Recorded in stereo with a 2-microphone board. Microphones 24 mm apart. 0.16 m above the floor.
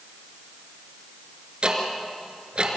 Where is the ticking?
45° right (ahead or behind), 3 m.